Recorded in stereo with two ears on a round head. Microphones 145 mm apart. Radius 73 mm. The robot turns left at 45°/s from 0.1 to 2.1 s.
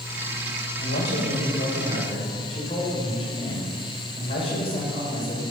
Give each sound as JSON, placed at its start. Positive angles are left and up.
{"t": 0.8, "sound": "a man speaking", "azimuth_deg": 95, "distance_m": 5.5}